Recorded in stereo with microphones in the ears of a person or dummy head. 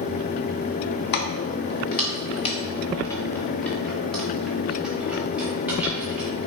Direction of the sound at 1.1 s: 50° left (ahead or behind).